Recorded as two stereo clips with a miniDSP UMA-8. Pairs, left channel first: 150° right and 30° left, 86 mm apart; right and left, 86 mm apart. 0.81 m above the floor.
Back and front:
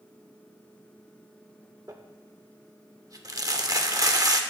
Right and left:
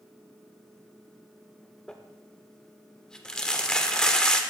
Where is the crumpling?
10° right, 0.7 m.